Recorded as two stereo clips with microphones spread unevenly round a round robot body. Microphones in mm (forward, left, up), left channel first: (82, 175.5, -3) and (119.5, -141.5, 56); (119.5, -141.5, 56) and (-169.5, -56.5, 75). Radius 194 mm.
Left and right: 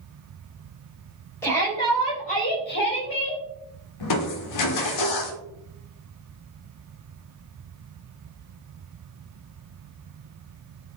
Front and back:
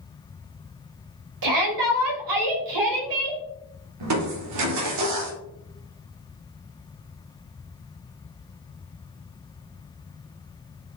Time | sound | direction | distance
1.4 | a shout | straight behind | 3.5 m
4.0 | crushing | 125° left | 1.6 m